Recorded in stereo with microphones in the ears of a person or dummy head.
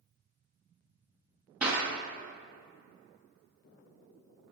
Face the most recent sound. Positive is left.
turn(degrees=-10)  # may be behind; listen again after turning